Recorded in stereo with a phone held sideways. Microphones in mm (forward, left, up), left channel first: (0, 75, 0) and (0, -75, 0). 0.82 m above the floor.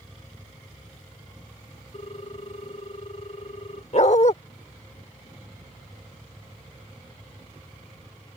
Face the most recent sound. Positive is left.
turn(degrees=55)  # may be behind; listen again after turning